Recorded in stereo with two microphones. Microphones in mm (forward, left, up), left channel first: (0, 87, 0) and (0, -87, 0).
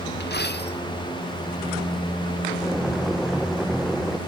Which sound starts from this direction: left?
A dropped coin, at 0.2 s.